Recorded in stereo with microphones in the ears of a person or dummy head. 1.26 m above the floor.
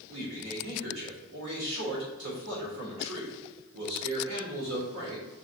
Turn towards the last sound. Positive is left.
turn(degrees=-65)  # may be behind; listen again after turning